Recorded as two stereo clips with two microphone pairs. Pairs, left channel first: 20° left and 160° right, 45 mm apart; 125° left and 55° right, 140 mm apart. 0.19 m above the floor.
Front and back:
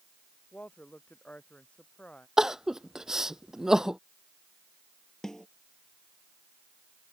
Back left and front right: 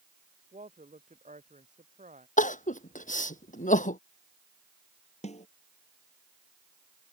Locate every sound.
0.5 s a woman speaking: 35° right; by 2.3 s 40° right
2.4 s crying: 120° left
5.2 s a snare drum: 95° left